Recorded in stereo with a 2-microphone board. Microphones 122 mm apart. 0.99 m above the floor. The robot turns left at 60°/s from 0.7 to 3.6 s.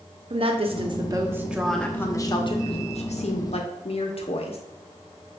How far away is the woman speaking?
About 0.6 m.